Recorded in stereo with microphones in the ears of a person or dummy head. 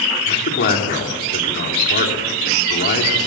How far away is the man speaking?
About 3 m.